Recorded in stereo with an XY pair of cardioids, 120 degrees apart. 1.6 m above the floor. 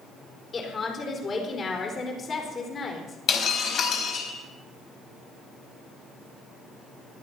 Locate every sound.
0.5 s a woman speaking: 35° left, 4 m
3.3 s breaking glass: 60° left, 4 m